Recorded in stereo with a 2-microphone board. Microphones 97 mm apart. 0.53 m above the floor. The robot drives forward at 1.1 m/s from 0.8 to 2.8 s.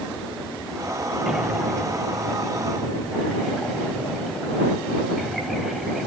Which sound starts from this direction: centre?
Breathing, at 1.3 s.